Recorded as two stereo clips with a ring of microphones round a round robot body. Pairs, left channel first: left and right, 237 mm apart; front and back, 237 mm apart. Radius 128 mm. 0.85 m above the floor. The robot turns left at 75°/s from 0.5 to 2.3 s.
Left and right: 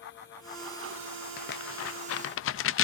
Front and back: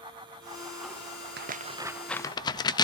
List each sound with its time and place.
1.4 s tearing paper: 140° left, 0.6 m; by 2.8 s 70° left, 0.6 m